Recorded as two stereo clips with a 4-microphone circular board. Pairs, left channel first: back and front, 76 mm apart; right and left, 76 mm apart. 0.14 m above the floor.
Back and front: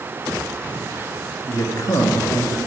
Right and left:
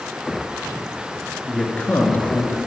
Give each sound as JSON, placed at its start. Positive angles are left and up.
{"t": 1.4, "sound": "a man speaking", "azimuth_deg": -165, "distance_m": 1.7}